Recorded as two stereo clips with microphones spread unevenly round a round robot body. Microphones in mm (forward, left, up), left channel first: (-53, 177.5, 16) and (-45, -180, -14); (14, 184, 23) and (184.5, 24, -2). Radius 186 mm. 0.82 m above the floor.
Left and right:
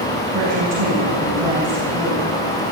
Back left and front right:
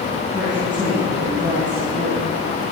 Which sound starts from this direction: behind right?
A woman speaking, at 0.3 s.